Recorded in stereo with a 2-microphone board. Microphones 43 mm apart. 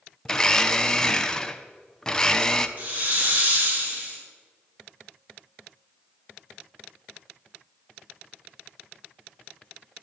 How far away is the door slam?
I don't hear a door slam.